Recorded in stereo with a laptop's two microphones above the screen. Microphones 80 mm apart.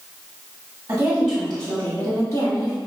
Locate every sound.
0.9 s a woman speaking: 25° right (ahead or behind), 1.7 m; by 2.8 s 50° left (ahead or behind), 2.5 m